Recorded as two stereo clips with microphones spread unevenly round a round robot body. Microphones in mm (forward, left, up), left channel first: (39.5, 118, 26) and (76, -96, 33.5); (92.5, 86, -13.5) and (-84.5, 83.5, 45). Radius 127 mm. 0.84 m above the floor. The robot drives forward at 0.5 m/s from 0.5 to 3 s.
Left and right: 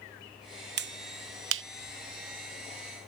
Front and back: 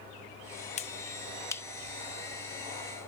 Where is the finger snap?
45° right; by 1.6 s 65° right.